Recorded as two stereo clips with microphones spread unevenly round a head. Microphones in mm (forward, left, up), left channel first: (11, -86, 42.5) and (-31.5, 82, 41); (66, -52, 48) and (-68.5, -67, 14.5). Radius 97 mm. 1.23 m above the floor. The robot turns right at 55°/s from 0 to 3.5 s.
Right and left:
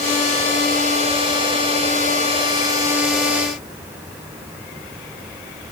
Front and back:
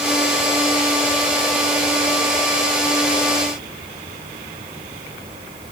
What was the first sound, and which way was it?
Only background noise.